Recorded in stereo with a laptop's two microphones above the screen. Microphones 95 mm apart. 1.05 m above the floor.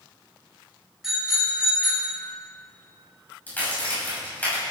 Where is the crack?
20° left (ahead or behind), 6.5 m.